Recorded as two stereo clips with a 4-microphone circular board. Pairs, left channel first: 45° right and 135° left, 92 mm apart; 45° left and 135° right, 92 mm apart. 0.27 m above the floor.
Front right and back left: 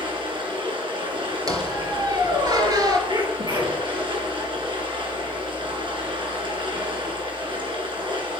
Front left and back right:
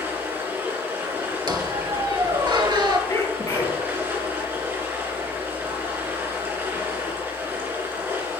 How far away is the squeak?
About 1.3 m.